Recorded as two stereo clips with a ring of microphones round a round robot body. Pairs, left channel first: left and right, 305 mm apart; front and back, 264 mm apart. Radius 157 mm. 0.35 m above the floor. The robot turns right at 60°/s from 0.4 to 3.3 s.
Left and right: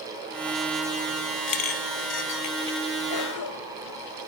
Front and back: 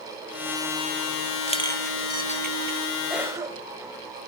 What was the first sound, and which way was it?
A clink, 65° left.